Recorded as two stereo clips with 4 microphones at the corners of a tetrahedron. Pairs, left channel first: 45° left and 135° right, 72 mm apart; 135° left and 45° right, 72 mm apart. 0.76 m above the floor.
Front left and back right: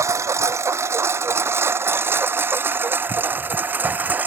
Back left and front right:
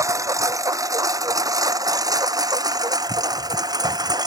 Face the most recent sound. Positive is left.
turn(degrees=-70)